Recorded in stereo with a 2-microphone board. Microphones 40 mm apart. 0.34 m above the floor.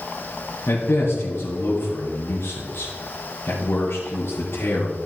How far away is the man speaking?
About 4 m.